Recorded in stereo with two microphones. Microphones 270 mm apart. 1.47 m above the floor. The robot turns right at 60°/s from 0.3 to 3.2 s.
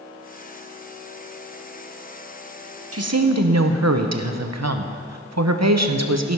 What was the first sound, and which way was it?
A woman speaking, 60° right (ahead or behind).